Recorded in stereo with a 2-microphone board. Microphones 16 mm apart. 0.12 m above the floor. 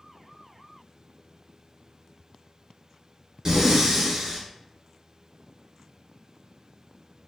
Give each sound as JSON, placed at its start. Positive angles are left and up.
{"t": 3.5, "sound": "breathing", "side_deg": -40, "distance_m": 2.0}